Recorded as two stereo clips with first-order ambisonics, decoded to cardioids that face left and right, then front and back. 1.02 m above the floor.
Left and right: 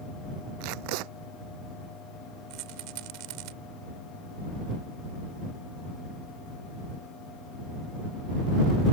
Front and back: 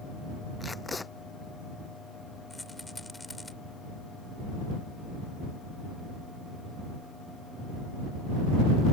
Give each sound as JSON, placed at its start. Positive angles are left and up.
{"t": 0.6, "sound": "tape being pulled", "azimuth_deg": -80}
{"t": 2.5, "sound": "a rattle", "azimuth_deg": -85}